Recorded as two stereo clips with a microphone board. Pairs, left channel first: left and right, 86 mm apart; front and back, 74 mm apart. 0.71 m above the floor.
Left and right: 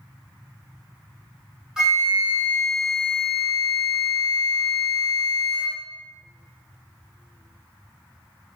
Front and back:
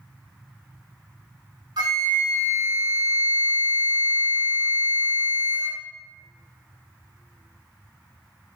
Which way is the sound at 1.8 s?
170° right.